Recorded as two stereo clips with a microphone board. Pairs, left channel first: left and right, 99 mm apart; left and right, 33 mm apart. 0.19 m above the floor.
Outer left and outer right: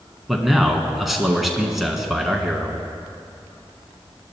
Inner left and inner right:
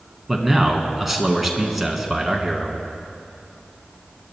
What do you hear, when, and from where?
0.3 s a man speaking: 5° right (ahead or behind), 1.6 m